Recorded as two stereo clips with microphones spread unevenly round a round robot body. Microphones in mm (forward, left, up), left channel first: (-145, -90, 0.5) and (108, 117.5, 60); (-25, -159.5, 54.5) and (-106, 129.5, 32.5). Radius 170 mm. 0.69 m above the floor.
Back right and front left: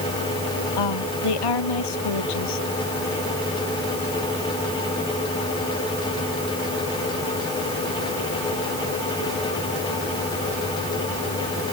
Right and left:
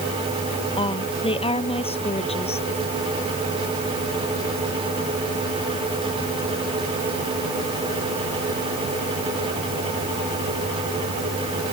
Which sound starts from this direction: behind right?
A woman speaking, at 0.8 s.